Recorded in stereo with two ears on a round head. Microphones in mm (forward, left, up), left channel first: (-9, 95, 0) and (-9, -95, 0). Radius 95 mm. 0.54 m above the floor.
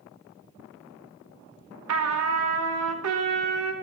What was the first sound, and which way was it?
A trumpet, 80° right.